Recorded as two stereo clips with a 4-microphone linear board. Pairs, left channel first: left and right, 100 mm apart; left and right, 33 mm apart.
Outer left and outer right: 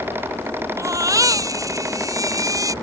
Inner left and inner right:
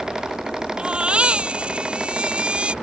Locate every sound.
0.8 s a baby crying: 35° right (ahead or behind)